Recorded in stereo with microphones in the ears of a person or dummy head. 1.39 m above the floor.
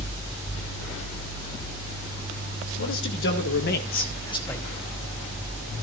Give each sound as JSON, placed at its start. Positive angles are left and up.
{"t": 2.8, "sound": "a man speaking", "side_deg": 65, "distance_m": 3.0}